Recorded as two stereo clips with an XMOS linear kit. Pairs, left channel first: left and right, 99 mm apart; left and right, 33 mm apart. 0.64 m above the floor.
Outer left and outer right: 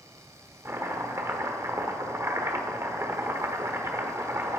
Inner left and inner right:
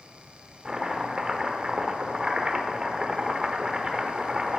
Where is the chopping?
25° right (ahead or behind), 1.0 m.